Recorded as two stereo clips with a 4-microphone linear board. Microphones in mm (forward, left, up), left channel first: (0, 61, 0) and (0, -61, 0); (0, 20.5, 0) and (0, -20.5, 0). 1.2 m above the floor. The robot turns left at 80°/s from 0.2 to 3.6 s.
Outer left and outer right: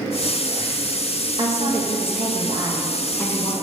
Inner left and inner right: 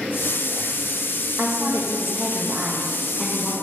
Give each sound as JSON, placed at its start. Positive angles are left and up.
{"t": 1.4, "sound": "a woman speaking", "azimuth_deg": -45, "distance_m": 1.1}